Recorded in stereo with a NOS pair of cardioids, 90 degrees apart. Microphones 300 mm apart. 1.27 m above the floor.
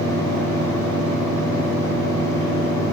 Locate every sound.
0.0 s a fan: 10° left, 4 m